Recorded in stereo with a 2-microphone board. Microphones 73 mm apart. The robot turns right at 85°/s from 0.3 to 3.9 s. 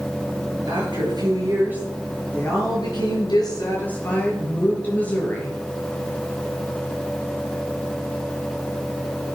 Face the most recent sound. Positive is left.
turn(degrees=160)